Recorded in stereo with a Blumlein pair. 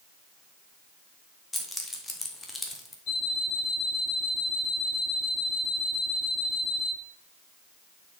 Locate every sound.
1.5 s keys jangling: 10° left, 1.3 m
3.1 s an alarm clock: 50° left, 2.5 m